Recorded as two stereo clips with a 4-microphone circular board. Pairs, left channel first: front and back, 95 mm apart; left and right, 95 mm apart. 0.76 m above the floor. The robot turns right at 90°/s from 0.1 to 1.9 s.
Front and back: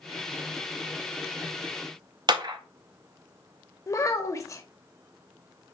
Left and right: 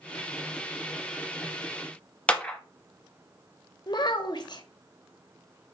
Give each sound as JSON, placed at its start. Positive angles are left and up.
{"t": 2.3, "sound": "a clap", "azimuth_deg": 165, "distance_m": 0.7}
{"t": 3.9, "sound": "a child speaking", "azimuth_deg": 55, "distance_m": 0.8}